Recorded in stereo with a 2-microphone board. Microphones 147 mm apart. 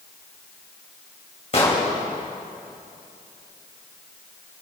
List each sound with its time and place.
1.5 s an explosion: 45° left (ahead or behind), 2 m